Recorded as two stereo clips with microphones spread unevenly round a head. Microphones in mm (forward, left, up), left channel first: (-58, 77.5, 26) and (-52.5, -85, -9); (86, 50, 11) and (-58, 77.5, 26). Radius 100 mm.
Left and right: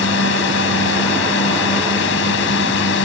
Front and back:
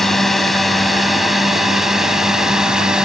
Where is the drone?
80° left; by 3.1 s 85° left.